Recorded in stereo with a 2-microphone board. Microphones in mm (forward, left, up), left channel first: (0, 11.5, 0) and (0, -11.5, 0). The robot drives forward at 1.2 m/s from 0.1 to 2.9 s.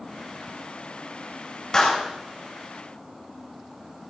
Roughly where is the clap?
Left.